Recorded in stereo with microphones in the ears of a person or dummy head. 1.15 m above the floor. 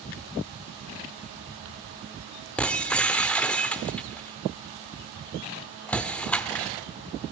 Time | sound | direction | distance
2.6 | breaking glass | 5° left (ahead or behind) | 1.1 m